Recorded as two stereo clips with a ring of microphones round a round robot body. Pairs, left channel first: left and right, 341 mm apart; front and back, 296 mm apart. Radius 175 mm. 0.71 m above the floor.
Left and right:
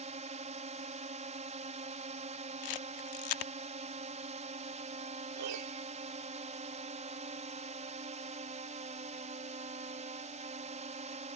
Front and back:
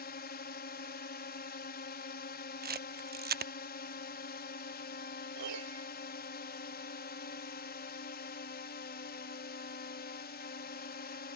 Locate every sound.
0.0 s a drone: 35° right
2.6 s a camera shutter: 120° left
5.4 s a piano: 135° right